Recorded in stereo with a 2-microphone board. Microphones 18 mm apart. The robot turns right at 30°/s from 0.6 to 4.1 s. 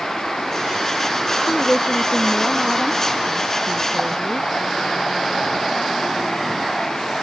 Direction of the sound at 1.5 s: 145° left.